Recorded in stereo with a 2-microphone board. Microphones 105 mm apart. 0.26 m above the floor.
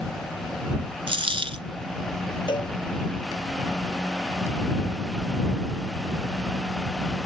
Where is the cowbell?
50° left (ahead or behind).